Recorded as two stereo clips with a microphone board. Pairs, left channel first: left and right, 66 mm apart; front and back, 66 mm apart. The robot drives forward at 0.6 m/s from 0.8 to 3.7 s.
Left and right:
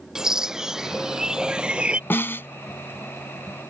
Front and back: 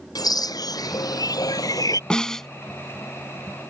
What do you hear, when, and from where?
0.1 s a bird: 10° right; by 2.0 s 20° right
2.1 s a snare drum: 70° left; by 2.5 s 80° left